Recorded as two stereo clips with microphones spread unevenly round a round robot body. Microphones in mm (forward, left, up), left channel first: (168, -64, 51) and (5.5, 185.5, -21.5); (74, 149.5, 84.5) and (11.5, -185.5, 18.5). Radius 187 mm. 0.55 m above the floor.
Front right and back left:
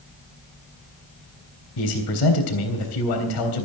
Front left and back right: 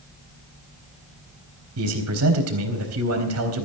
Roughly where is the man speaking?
Ahead right.